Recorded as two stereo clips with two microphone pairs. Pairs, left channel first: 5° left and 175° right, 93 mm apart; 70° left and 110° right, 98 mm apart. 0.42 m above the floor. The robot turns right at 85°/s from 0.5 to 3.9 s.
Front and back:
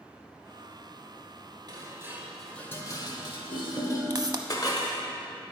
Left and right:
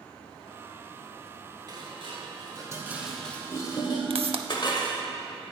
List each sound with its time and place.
1.7 s dishes clattering: 145° right, 0.9 m; by 5.0 s 40° left, 0.9 m
4.1 s a pop: 130° right, 0.5 m